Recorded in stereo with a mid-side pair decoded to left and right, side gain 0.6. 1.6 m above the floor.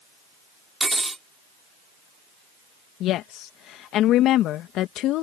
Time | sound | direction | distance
0.8 | cutlery clinking | 10° right | ?
3.0 | a woman speaking | 60° left | ?